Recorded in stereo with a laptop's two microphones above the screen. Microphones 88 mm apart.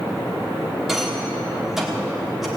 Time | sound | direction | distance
0.9 | a rattle | 5° right (ahead or behind) | 1.4 m